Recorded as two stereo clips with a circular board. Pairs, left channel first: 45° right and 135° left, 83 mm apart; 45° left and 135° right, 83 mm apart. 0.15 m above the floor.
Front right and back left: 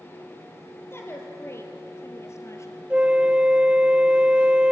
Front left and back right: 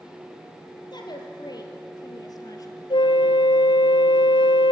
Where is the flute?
60° left, 0.8 m.